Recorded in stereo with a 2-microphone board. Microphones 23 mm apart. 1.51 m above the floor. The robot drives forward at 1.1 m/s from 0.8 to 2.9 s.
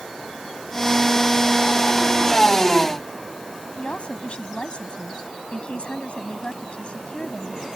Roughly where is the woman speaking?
Left.